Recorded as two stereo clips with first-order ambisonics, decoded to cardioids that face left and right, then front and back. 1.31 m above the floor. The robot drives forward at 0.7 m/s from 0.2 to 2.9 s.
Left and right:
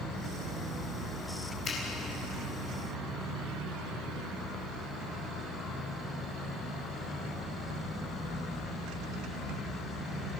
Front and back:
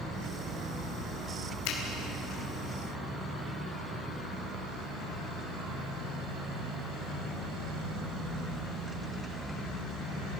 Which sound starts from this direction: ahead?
A finger snap, at 1.6 s.